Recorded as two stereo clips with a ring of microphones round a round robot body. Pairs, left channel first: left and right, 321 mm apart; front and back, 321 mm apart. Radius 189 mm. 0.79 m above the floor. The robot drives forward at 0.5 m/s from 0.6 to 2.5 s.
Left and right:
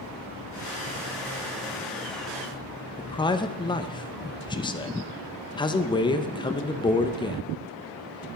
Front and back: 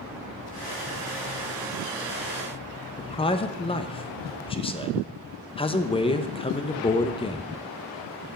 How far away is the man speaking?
About 0.7 m.